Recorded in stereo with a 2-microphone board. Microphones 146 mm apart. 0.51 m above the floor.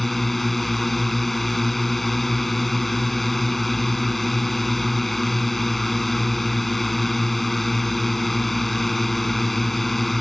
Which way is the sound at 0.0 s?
Centre (ahead or behind).